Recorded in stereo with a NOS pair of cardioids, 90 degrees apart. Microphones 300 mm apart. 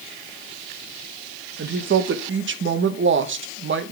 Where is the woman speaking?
40° right, 1.3 m.